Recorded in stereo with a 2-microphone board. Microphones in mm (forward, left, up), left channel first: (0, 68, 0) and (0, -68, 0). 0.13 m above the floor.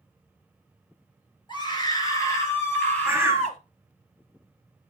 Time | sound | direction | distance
1.5 | a scream | 35° left (ahead or behind) | 3 m
3.0 | a bird | 15° right (ahead or behind) | 1.1 m